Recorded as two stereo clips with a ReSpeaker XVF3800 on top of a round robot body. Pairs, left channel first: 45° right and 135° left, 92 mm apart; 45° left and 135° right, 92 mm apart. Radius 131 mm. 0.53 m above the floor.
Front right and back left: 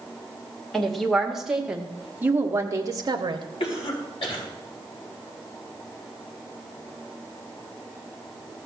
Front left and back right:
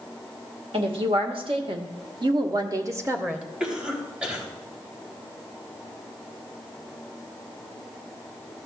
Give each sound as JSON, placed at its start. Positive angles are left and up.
{"t": 0.7, "sound": "a woman speaking", "azimuth_deg": -130, "distance_m": 2.0}
{"t": 3.6, "sound": "a cough", "azimuth_deg": -55, "distance_m": 3.5}